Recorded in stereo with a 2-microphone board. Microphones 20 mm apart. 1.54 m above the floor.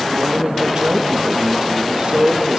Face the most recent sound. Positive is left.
turn(degrees=-70)  # may be behind; listen again after turning